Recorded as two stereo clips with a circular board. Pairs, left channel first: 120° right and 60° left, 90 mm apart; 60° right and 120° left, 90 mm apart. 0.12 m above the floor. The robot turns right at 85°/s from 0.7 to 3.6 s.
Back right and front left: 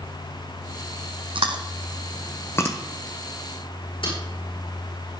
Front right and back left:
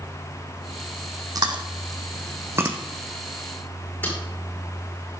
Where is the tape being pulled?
130° right, 5.5 m.